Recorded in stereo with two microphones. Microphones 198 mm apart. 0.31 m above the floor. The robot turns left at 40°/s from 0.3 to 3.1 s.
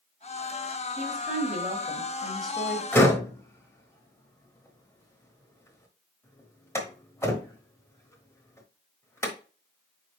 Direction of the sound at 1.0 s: 95° right.